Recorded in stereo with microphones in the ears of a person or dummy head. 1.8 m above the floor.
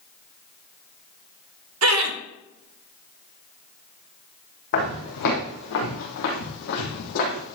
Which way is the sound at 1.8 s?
80° right.